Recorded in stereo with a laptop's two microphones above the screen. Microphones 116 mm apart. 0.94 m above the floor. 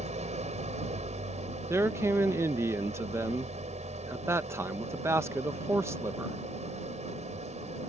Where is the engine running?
85° right.